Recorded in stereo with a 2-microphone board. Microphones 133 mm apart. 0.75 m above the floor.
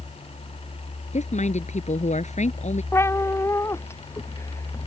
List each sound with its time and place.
1.1 s a woman speaking: 60° left (ahead or behind)
2.9 s a cat meowing: 20° left (ahead or behind)